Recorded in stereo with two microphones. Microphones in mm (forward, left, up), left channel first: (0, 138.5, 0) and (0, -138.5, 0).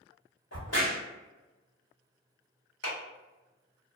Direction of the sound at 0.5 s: 60° left (ahead or behind).